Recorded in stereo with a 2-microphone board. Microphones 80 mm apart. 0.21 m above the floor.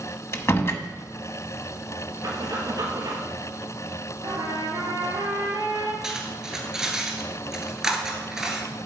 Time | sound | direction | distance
0.3 | a door slam | 35° left (ahead or behind) | 0.8 m
2.2 | breathing | 50° right (ahead or behind) | 2.5 m
4.2 | a trumpet | 65° right (ahead or behind) | 3 m
6.0 | cutlery clinking | 5° right (ahead or behind) | 1.8 m